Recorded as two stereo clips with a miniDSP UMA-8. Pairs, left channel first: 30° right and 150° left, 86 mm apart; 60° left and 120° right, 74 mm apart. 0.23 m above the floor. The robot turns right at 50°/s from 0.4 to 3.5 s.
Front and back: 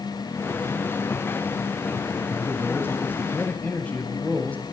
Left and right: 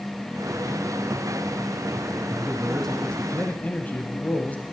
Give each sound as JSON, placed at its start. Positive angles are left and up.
{"t": 2.3, "sound": "a man speaking", "azimuth_deg": -45, "distance_m": 1.0}